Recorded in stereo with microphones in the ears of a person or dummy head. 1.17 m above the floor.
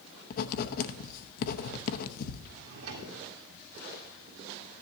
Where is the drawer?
80° right, 2 m.